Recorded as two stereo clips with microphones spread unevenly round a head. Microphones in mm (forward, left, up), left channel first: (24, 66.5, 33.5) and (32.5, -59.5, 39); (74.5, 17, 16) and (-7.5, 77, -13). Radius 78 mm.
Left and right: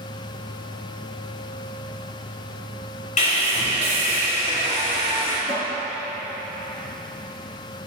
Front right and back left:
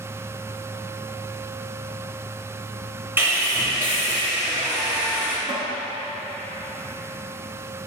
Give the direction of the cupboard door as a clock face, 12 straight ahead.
8 o'clock.